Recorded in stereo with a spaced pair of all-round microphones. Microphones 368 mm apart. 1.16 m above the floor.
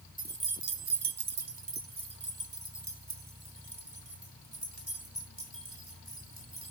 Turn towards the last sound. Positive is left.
turn(degrees=-35)  # may be behind; listen again after turning